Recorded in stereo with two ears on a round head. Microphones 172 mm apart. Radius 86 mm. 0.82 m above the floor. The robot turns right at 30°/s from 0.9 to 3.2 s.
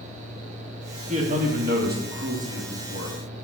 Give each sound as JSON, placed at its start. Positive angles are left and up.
{"t": 1.1, "sound": "a man speaking", "azimuth_deg": -140, "distance_m": 1.8}